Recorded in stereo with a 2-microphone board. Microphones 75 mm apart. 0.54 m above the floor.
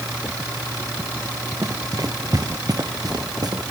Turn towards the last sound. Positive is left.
turn(degrees=-60)  # may be behind; listen again after turning